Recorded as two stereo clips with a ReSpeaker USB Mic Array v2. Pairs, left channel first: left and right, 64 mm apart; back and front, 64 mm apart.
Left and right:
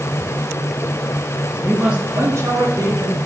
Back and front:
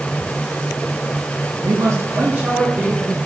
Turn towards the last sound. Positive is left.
turn(degrees=-75)